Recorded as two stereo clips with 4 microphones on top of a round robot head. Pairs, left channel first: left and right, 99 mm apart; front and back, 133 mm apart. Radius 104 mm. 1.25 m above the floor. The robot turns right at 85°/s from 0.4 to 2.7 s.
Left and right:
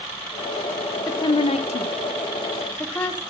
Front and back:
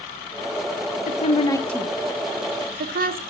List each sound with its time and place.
1.1 s a woman speaking: 30° left, 1.7 m; by 3.2 s 165° left, 1.7 m